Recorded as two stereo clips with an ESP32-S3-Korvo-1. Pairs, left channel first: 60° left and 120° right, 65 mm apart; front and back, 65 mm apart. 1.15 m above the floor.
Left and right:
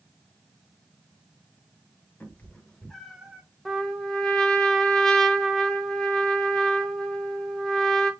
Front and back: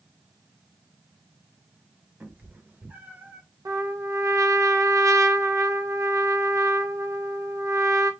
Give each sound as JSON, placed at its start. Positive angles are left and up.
{"t": 2.2, "sound": "a cat meowing", "azimuth_deg": 115, "distance_m": 1.4}
{"t": 3.6, "sound": "a trumpet", "azimuth_deg": 145, "distance_m": 1.0}